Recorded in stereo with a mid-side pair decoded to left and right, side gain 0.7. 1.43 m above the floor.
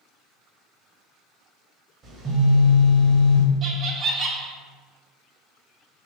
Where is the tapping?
No tapping in this recording.